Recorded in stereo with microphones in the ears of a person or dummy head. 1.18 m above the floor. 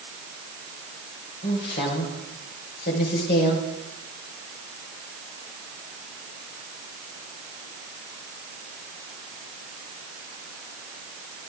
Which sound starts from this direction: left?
A woman speaking, at 1.4 s.